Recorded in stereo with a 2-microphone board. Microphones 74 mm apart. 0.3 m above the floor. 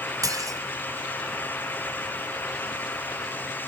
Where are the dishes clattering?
50° right (ahead or behind), 1.3 m.